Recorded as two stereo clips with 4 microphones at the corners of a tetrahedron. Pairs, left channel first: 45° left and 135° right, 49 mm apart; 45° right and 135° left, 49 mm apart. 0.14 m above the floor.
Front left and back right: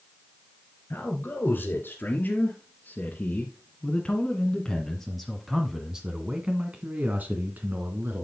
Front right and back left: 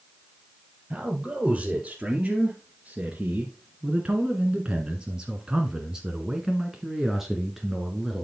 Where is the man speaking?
65° left, 3 m; by 8.2 s 140° right, 2.0 m.